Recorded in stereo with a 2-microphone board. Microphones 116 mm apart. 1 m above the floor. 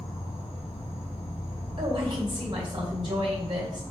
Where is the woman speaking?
40° right (ahead or behind), 3.5 m.